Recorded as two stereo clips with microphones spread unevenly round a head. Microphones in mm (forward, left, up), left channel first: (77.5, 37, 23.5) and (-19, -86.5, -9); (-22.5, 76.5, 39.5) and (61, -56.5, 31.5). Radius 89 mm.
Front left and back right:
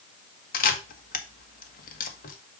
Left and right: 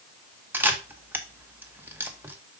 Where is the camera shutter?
20° left, 1.3 m.